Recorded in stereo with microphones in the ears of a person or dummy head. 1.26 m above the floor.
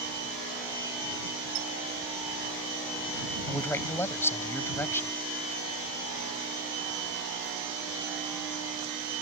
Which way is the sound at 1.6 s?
90° right.